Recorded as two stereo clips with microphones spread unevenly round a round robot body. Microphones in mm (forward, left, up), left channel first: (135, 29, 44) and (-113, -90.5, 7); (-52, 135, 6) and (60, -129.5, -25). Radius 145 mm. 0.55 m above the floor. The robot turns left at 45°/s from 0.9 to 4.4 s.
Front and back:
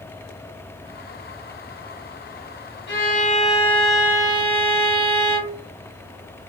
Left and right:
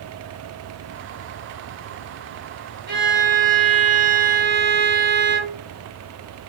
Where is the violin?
25° right, 1.2 m; by 5.6 s 95° right, 1.2 m.